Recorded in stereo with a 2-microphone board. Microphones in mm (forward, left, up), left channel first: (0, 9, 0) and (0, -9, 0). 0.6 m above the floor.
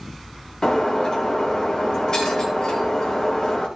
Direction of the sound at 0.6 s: 35° left (ahead or behind).